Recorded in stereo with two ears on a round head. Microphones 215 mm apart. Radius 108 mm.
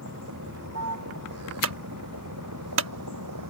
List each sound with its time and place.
0.0 s a vehicle: 55° right (ahead or behind); by 3.5 s 70° right (ahead or behind)
1.6 s a clunk: 60° right (ahead or behind)